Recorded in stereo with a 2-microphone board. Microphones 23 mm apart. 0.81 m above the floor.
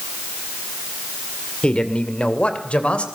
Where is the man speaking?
55° left (ahead or behind), 2.5 m; by 3.1 s 70° left (ahead or behind), 3.5 m.